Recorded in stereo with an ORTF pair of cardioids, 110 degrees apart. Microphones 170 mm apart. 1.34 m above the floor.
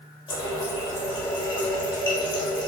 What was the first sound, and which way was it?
A running tap, 30° left.